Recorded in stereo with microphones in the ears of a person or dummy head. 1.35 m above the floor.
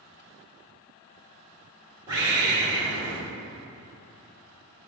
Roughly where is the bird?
Centre.